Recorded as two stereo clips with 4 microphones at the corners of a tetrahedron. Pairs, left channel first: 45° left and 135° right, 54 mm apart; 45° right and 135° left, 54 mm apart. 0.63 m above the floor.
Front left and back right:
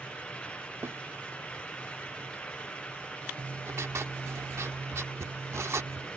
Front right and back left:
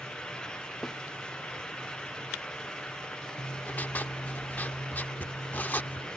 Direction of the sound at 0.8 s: 125° right.